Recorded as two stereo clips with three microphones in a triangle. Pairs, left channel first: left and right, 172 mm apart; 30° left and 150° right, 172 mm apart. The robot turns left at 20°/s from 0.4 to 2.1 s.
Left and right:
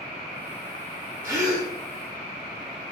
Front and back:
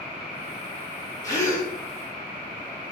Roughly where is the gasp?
Ahead right.